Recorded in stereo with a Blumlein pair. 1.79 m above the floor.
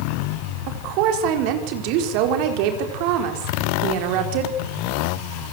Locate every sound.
0.7 s a woman speaking: 45° right, 4.5 m